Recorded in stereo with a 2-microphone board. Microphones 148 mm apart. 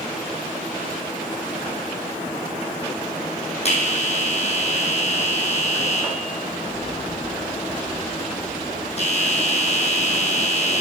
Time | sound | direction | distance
3.6 | a bell | 50° left (ahead or behind) | 2.5 m